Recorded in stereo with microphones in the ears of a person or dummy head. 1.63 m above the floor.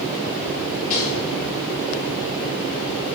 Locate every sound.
0.9 s a rattle: 45° left (ahead or behind), 4 m